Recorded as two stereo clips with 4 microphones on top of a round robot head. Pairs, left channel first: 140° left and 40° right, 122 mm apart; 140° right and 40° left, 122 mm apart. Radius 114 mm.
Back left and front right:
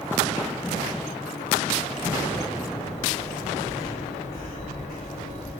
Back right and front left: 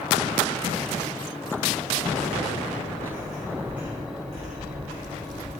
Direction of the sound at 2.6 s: 175° right.